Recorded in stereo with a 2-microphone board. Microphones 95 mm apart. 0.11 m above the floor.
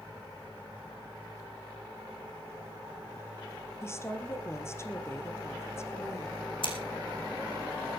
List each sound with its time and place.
3.8 s a woman speaking: 30° left (ahead or behind), 2.5 m
6.6 s scissors: 65° left (ahead or behind), 3 m